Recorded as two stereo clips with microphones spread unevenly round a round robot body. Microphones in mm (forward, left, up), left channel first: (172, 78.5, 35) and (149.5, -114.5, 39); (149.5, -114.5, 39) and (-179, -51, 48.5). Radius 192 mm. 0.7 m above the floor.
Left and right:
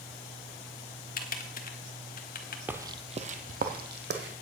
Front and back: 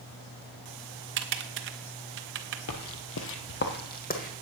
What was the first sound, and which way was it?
Typing on a keyboard, 115° left.